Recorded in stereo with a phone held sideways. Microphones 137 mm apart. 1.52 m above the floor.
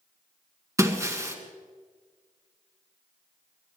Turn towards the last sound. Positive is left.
turn(degrees=-20)  # may be behind; listen again after turning